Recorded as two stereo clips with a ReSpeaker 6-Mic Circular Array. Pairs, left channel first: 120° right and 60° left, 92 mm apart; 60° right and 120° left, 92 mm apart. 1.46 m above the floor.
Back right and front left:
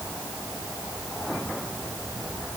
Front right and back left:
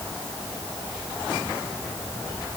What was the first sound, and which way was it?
Only background noise.